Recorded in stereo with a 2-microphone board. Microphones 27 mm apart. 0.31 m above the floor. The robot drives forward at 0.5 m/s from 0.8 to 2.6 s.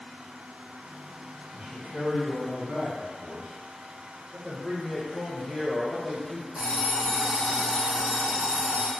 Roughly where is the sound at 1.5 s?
Right.